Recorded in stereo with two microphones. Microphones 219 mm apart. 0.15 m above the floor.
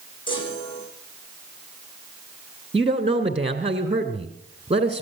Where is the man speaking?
30° right (ahead or behind), 2.0 m.